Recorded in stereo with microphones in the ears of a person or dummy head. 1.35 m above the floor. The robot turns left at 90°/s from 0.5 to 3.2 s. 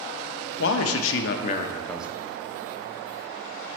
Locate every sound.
0.6 s a man speaking: 120° left, 0.6 m; by 2.1 s 15° right, 0.6 m